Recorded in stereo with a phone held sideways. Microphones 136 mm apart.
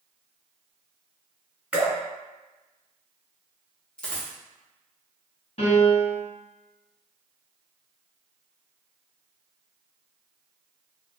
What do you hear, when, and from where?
1.7 s dripping: 10° right (ahead or behind), 1.7 m
4.0 s a dropped coin: 10° left (ahead or behind), 0.8 m
5.6 s a piano: 55° left (ahead or behind), 1.6 m